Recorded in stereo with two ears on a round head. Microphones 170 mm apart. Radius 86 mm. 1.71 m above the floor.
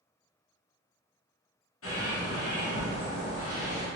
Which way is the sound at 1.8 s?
85° left.